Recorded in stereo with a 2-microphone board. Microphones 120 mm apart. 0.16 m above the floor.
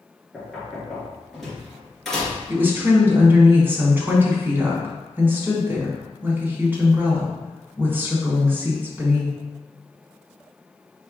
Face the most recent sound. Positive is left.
turn(degrees=-15)  # may be behind; listen again after turning